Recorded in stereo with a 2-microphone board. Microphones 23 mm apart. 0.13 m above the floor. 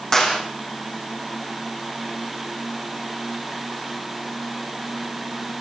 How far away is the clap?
About 7 m.